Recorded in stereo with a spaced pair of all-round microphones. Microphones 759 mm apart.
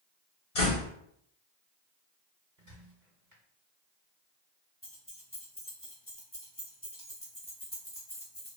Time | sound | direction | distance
0.6 | a door slam | 55° left (ahead or behind) | 0.9 m
2.6 | a squeak | 25° right (ahead or behind) | 1.0 m
4.8 | keys jangling | 15° left (ahead or behind) | 0.9 m